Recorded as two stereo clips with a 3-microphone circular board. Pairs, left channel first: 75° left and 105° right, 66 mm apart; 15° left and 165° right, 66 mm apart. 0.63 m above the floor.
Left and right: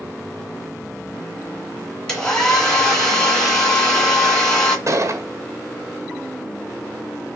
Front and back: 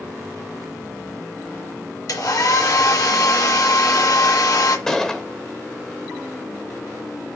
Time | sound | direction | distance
2.1 | a hair dryer | 5° right | 2.5 m
4.9 | a gunshot | 65° right | 1.6 m